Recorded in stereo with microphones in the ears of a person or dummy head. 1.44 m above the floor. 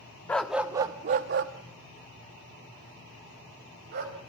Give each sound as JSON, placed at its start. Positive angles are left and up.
{"t": 0.3, "sound": "a dog barking", "side_deg": 5, "distance_m": 1.0}